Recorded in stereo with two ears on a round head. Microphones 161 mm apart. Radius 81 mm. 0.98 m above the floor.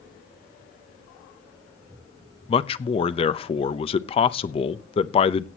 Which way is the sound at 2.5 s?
30° left (ahead or behind).